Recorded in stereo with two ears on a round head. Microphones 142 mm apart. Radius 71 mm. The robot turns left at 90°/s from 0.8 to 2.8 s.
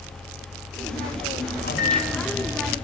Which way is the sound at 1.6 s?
70° left.